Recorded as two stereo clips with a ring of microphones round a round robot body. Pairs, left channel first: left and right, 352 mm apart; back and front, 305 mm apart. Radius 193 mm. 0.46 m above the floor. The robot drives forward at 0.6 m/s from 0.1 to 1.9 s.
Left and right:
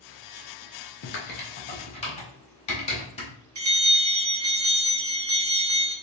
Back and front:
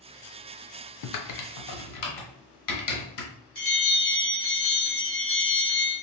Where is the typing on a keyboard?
145° left, 0.6 m; by 3.3 s 160° left, 1.0 m.